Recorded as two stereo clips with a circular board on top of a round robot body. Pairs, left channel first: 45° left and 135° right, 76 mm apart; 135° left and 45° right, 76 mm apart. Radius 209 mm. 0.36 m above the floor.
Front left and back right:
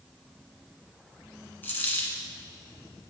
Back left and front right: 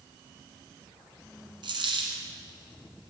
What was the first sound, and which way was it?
A dropped coin, 20° right.